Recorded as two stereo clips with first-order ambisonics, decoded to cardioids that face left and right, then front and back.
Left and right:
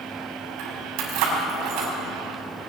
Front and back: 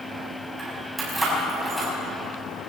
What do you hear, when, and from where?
0.6 s keys jangling: 100° right, 7 m; by 1.9 s 90° right, 6 m